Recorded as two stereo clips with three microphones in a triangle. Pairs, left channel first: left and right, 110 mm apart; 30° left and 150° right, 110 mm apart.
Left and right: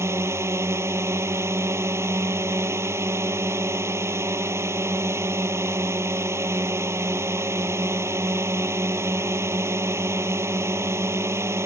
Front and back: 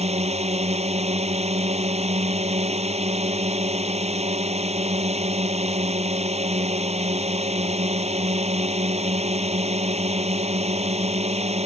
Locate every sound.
0.0 s a drone: 155° right